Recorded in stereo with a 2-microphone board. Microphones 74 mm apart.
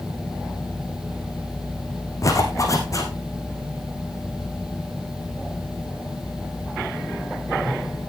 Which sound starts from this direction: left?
A zipper, at 2.2 s.